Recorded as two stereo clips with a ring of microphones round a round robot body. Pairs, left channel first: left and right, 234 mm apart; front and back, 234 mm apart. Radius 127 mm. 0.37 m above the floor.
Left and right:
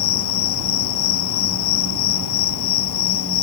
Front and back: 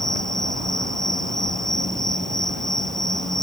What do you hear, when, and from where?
0.0 s an insect: 90° left